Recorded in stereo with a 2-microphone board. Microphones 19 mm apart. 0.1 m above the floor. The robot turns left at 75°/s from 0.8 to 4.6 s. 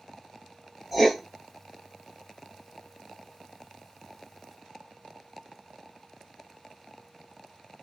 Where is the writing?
10° right (ahead or behind), 0.8 m; by 1.2 s 5° left (ahead or behind), 0.8 m.